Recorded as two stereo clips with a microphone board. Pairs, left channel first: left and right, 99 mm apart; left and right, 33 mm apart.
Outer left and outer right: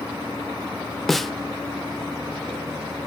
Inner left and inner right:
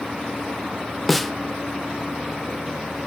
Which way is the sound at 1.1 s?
Centre (ahead or behind).